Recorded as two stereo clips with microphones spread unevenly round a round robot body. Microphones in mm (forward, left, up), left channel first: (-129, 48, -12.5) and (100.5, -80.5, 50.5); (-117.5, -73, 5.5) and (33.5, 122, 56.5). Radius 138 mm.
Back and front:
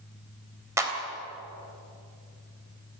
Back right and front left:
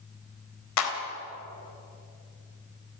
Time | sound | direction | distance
0.8 | a clap | 110° right | 3.5 m